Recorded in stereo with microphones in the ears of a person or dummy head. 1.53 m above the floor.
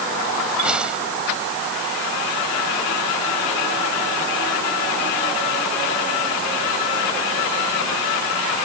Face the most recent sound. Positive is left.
turn(degrees=5)  # may be behind; listen again after turning